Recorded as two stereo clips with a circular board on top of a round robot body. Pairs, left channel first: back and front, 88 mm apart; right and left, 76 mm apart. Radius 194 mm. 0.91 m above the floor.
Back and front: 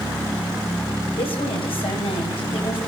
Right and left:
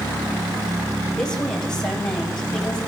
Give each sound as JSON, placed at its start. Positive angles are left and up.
{"t": 1.2, "sound": "a woman speaking", "azimuth_deg": -175, "distance_m": 5.5}